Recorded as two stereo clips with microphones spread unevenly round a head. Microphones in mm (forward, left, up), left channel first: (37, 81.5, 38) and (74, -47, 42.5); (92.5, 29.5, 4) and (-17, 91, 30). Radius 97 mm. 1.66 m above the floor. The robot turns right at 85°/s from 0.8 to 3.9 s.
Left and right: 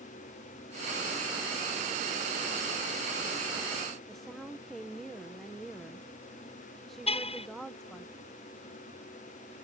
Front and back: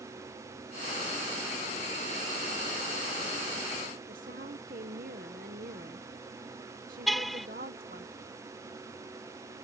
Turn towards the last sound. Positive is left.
turn(degrees=60)